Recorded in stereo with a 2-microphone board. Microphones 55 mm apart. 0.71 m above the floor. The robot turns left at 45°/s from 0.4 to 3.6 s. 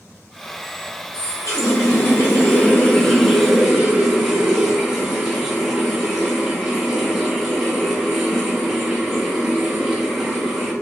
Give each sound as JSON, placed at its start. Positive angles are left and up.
{"t": 1.1, "sound": "a running tap", "azimuth_deg": 100, "distance_m": 0.9}